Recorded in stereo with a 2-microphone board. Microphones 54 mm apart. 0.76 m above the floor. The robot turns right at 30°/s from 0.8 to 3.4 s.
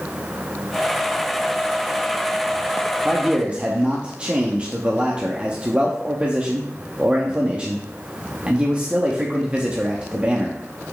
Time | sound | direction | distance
3.0 | a man speaking | 15° right (ahead or behind) | 0.8 m